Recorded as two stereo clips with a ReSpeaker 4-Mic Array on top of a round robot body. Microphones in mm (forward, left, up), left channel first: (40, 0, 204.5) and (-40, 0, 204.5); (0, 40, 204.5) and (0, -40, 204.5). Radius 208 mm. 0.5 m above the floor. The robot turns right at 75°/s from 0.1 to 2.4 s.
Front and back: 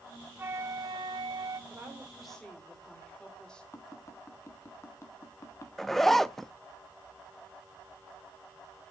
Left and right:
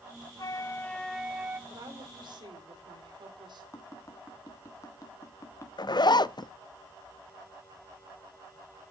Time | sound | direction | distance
0.4 | a flute | 120° left | 0.9 m
1.7 | a woman speaking | 130° right | 3 m
3.7 | tapping | 45° left | 1.6 m
5.8 | a zipper | 85° left | 0.5 m